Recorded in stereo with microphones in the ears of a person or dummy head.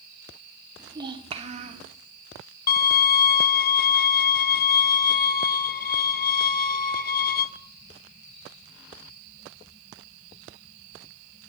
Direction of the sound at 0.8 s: 15° right (ahead or behind).